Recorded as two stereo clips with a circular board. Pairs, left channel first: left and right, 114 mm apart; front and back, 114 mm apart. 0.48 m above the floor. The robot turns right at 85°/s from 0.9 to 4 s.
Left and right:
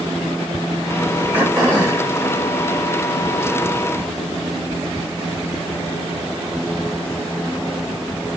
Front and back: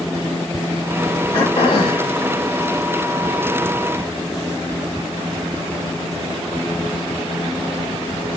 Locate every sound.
1.3 s throat clearing: 20° right, 1.8 m; by 2.1 s 45° left, 1.8 m